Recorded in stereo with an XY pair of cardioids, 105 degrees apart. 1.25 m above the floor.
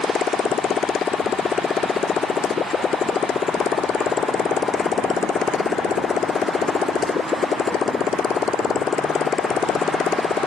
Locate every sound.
0.0 s a motorcycle: 45° left